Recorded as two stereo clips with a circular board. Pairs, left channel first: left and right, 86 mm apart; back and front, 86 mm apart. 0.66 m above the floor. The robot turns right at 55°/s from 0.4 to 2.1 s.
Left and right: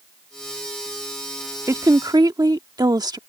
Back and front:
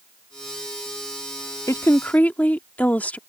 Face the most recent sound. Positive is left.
turn(degrees=-110)